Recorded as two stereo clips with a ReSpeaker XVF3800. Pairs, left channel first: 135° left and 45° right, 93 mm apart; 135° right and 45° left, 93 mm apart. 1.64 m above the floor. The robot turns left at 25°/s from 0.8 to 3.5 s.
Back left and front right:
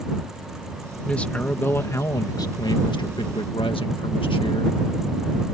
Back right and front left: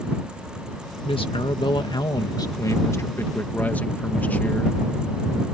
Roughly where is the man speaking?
Behind right.